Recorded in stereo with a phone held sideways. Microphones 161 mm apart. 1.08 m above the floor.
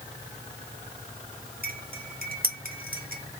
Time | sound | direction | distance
1.6 | cutlery clinking | 65° right (ahead or behind) | 0.9 m